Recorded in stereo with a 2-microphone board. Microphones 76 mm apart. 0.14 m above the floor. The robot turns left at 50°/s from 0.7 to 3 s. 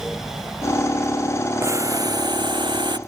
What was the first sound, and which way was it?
Boiling, 35° right.